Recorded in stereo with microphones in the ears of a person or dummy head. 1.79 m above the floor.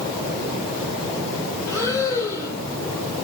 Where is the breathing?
20° left (ahead or behind), 4 m.